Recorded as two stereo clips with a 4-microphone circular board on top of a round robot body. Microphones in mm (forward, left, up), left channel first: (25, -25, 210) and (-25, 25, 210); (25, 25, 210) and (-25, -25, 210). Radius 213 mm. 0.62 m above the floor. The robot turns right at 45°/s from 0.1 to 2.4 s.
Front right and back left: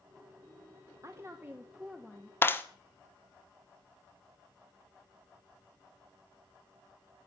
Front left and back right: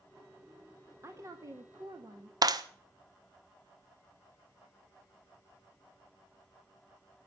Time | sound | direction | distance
1.0 | a woman speaking | 175° left | 2 m
2.4 | a clap | 105° right | 1.6 m